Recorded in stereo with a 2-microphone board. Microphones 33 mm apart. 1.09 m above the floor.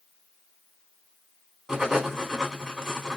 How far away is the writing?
About 1.3 m.